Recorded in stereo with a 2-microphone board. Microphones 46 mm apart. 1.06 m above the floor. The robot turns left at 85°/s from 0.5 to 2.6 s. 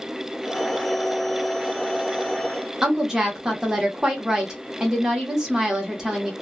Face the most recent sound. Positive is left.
turn(degrees=-15)  # may be behind; listen again after turning